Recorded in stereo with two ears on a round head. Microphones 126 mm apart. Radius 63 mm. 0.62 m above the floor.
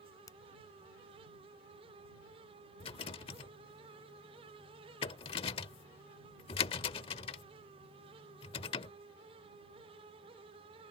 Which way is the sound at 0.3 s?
25° left (ahead or behind).